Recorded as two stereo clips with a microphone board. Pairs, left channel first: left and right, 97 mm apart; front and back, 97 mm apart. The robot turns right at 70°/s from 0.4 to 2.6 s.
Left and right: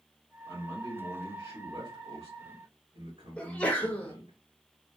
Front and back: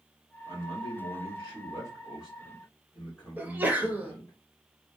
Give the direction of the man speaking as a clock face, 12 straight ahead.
8 o'clock.